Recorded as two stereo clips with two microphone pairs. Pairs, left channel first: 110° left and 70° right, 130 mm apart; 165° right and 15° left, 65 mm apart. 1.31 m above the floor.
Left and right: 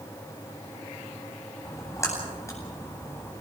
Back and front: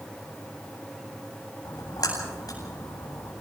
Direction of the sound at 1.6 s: 175° left.